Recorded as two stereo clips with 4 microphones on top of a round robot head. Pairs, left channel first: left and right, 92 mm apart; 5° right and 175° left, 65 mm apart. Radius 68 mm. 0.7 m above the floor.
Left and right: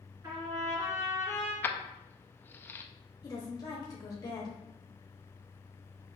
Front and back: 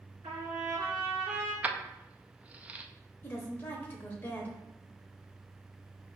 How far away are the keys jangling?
About 0.5 m.